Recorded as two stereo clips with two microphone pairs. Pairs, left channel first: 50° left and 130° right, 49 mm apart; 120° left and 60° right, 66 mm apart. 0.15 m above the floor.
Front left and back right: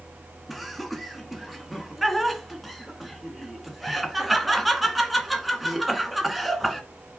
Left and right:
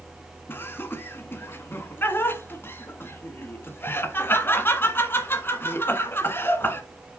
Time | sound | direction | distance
0.5 | laughter | 140° left | 1.6 m